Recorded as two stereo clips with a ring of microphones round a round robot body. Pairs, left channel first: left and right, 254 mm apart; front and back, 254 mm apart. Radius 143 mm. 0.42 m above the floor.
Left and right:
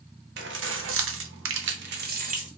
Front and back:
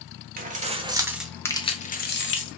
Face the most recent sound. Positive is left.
turn(degrees=-30)